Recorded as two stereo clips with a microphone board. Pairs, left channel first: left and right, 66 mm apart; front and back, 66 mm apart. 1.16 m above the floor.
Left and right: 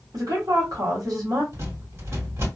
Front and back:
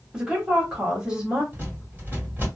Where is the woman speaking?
105° right, 1.6 m.